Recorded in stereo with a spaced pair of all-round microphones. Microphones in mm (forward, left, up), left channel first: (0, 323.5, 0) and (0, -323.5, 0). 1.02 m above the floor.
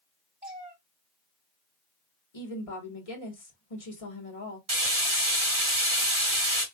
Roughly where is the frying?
Right.